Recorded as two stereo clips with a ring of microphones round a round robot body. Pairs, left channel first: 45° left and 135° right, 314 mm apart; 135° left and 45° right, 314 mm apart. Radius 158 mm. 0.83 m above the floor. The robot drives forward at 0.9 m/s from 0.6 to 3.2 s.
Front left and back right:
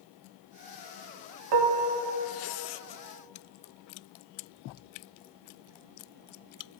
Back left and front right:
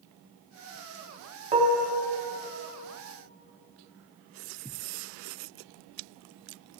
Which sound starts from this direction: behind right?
Dishes clattering, at 1.5 s.